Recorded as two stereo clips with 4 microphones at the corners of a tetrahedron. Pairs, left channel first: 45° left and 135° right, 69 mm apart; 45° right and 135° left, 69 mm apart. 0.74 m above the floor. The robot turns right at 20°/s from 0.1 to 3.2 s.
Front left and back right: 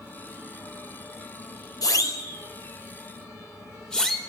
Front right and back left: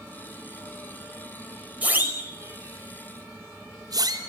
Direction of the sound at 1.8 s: 70° left.